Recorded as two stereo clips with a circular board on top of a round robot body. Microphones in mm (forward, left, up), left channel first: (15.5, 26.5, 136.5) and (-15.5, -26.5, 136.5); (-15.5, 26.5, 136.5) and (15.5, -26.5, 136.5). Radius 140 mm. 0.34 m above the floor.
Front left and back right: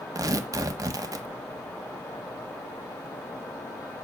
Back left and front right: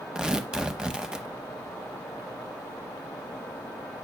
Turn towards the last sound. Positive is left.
turn(degrees=-140)